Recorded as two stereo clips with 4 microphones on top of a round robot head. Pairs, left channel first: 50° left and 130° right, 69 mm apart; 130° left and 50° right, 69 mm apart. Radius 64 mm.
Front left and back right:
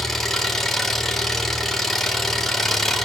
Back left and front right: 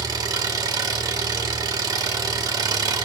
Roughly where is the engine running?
Ahead right.